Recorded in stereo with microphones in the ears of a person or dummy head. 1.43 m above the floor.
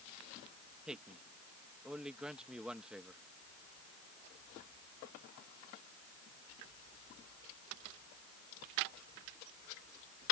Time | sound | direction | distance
0.9 | a man speaking | 5° left (ahead or behind) | ?